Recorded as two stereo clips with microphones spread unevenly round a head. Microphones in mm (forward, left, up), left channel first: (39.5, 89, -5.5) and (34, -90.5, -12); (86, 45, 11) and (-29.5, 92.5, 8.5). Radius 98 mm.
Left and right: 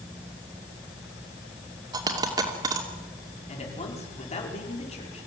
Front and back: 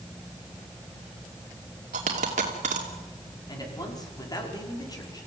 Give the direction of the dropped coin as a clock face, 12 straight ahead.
5 o'clock.